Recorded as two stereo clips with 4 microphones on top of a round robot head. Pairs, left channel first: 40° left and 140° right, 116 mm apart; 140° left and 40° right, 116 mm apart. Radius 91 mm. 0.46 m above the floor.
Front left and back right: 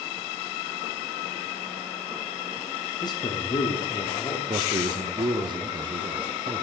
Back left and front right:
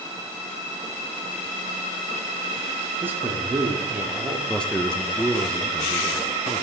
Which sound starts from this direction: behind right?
A man speaking, at 4.5 s.